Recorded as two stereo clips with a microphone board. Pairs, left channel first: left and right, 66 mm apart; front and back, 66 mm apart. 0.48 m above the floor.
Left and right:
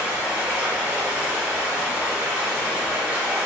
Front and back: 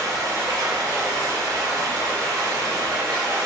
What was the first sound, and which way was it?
Running water, 160° right.